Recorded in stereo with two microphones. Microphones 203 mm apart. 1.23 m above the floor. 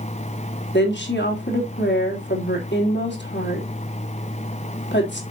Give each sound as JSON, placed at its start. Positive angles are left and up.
{"t": 0.7, "sound": "a woman speaking", "side_deg": 60, "distance_m": 3.0}